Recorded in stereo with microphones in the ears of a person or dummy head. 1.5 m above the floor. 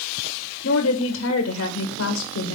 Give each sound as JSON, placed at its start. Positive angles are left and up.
{"t": 0.6, "sound": "a woman speaking", "side_deg": 85, "distance_m": 1.4}